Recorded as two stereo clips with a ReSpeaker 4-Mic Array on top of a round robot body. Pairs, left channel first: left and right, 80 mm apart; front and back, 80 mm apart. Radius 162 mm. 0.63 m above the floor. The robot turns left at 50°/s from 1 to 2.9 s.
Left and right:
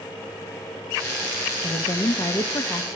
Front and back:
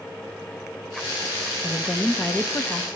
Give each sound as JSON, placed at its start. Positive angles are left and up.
{"t": 1.6, "sound": "a woman speaking", "azimuth_deg": 100, "distance_m": 1.0}